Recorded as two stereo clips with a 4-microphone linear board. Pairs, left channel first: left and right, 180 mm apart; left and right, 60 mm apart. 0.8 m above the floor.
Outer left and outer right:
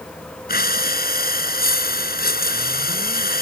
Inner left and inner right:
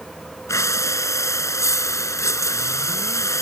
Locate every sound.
0.5 s breathing: 55° left (ahead or behind)